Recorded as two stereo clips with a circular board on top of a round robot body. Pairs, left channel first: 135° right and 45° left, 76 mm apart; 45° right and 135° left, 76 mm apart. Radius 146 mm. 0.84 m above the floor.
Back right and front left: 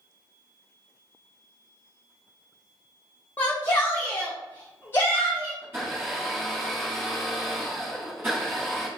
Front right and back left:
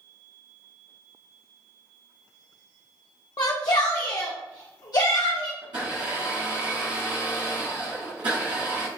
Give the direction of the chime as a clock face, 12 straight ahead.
I don't hear a chime.